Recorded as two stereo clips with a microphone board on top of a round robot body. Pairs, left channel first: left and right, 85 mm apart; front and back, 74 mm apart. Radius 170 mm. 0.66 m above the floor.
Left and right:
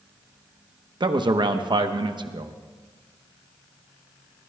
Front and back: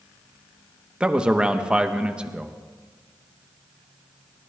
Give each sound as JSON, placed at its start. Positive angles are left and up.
{"t": 1.0, "sound": "a man speaking", "azimuth_deg": -105, "distance_m": 1.1}